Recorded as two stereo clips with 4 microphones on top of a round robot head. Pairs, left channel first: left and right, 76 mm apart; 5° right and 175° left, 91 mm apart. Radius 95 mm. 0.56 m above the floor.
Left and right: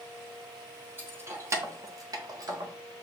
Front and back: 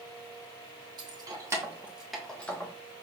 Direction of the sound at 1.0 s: 150° right.